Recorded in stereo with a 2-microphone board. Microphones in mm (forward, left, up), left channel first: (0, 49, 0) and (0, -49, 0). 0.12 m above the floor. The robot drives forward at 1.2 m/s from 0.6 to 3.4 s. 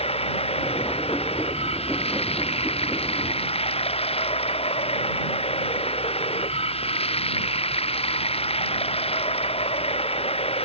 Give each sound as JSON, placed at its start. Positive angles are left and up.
{"t": 0.0, "sound": "running water", "side_deg": 85}